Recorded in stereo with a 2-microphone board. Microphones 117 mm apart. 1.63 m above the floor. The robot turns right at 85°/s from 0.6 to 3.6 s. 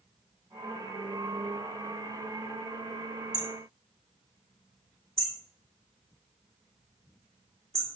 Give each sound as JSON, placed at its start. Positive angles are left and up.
{"t": 3.3, "sound": "hammering", "side_deg": -30, "distance_m": 3.0}